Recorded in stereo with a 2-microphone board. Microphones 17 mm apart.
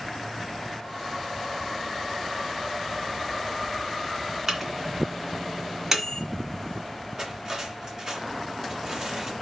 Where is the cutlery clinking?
40° right (ahead or behind), 2.0 m.